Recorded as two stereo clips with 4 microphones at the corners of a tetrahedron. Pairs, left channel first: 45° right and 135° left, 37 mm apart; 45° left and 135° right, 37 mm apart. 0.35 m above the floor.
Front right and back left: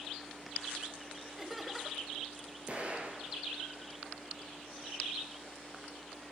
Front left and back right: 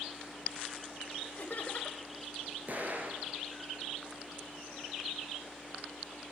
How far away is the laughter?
About 1.4 m.